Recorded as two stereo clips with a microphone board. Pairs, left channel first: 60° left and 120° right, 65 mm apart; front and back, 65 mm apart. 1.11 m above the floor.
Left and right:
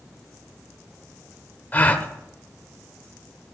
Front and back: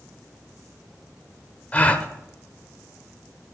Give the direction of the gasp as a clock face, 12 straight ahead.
11 o'clock.